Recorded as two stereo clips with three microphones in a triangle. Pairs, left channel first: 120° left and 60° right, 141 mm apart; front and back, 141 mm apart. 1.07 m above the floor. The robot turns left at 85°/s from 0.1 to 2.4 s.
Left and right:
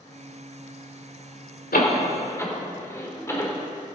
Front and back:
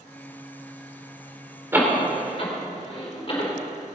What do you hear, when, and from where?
1.7 s a door slam: 105° left, 2.0 m; by 3.5 s 50° left, 2.0 m